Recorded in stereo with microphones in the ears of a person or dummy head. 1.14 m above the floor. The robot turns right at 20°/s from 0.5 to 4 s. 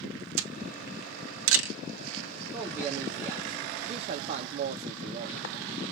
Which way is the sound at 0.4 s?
70° right (ahead or behind).